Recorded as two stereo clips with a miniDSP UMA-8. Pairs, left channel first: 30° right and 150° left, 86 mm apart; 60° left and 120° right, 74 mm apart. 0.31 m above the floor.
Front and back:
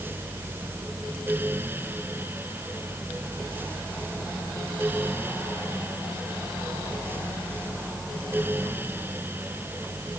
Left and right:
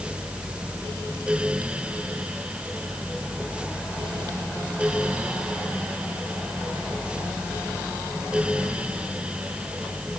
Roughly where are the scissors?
I don't hear scissors.